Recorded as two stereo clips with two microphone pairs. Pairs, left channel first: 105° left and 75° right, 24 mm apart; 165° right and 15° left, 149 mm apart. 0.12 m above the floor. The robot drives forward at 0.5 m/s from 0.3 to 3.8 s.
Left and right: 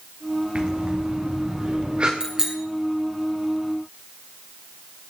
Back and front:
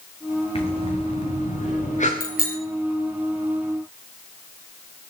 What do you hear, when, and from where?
0.6 s breathing: 115° right, 3 m; by 2.1 s 125° right, 3.5 m
2.2 s a bicycle bell: 145° right, 3 m